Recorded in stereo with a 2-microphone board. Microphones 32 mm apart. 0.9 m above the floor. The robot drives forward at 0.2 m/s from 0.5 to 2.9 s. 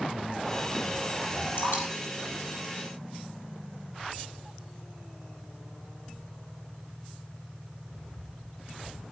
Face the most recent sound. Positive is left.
turn(degrees=80)